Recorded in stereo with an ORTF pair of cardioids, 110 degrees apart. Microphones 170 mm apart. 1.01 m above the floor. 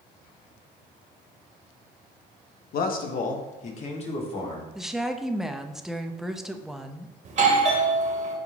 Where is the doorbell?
45° right, 1.7 m.